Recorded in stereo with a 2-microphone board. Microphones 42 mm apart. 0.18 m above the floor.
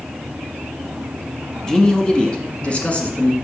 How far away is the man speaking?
About 1.3 m.